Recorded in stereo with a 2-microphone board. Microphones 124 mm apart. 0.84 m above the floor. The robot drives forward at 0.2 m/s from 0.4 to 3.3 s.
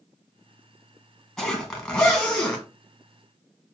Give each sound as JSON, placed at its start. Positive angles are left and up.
{"t": 1.4, "sound": "a zipper", "side_deg": 5, "distance_m": 1.2}